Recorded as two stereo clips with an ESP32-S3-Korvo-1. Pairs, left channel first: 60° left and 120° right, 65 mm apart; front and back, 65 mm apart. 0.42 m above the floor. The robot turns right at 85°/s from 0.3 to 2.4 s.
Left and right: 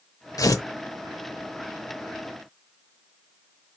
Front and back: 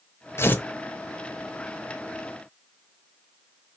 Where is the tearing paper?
40° left, 0.6 m; by 0.7 s 65° left, 0.6 m.